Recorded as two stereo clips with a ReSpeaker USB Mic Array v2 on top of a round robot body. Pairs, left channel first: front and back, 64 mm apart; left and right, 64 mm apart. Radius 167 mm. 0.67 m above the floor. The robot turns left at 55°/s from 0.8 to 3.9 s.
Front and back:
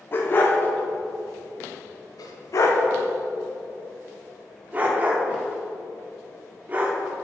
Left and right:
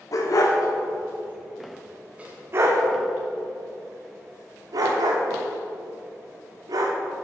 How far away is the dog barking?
About 0.5 m.